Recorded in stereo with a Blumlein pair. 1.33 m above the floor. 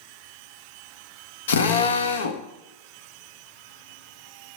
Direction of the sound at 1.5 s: 65° left.